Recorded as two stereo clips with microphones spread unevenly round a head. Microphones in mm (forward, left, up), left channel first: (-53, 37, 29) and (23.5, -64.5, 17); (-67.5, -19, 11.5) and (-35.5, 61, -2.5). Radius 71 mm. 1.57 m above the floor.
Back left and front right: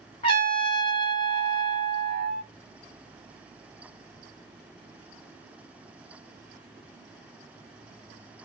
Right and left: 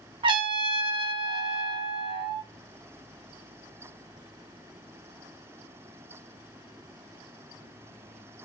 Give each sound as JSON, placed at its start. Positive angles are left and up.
{"t": 0.2, "sound": "a trumpet", "azimuth_deg": 80, "distance_m": 1.0}